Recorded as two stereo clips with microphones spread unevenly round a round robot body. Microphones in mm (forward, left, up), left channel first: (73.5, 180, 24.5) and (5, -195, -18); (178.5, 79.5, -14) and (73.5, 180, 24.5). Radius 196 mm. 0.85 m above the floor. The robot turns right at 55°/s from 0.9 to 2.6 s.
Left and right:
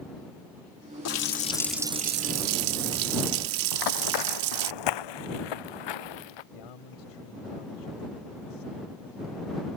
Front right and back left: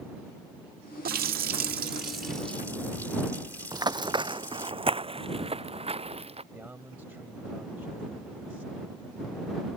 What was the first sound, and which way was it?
A running tap, 135° left.